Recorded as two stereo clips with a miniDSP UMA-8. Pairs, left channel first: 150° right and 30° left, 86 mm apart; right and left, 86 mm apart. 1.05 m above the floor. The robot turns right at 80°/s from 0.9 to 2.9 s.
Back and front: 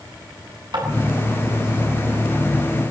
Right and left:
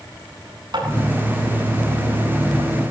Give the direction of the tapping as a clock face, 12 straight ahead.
10 o'clock.